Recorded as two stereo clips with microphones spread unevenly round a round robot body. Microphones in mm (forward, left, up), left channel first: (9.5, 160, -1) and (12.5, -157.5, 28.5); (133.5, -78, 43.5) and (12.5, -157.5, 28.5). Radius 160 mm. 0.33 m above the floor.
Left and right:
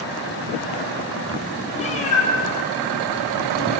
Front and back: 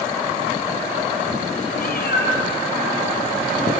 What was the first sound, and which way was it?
A cat meowing, 20° left.